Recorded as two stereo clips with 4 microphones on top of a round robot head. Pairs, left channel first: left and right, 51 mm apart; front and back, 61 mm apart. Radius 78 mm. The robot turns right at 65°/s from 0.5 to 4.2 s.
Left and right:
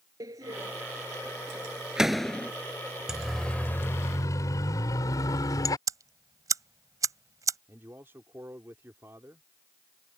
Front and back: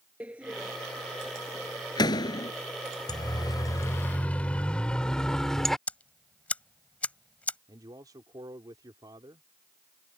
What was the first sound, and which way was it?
A door slam, 105° right.